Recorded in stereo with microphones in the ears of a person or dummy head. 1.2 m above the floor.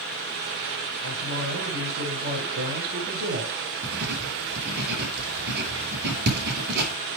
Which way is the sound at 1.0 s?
60° right (ahead or behind).